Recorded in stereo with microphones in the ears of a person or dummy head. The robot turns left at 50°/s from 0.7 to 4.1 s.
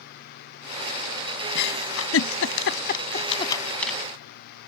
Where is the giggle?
60° left (ahead or behind); by 4.0 s centre (ahead or behind).